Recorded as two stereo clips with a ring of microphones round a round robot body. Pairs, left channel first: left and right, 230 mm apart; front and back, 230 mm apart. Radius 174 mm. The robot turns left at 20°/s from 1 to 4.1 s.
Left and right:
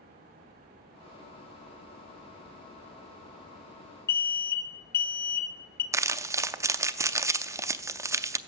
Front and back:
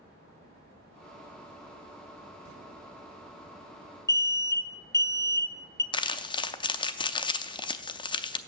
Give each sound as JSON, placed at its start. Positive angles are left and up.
{"t": 4.1, "sound": "an alarm", "azimuth_deg": 70, "distance_m": 0.9}
{"t": 5.9, "sound": "crumpling", "azimuth_deg": -30, "distance_m": 0.5}